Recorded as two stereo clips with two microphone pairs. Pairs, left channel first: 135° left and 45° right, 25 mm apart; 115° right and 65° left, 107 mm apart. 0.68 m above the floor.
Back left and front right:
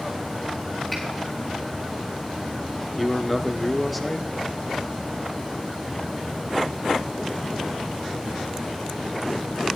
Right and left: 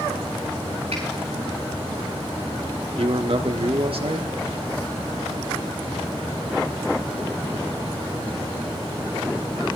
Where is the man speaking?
50° left, 1.2 m.